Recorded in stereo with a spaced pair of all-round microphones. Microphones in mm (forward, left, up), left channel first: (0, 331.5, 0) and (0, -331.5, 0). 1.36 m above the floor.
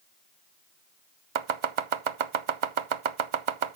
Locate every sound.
1.4 s chopping: 55° right (ahead or behind), 0.6 m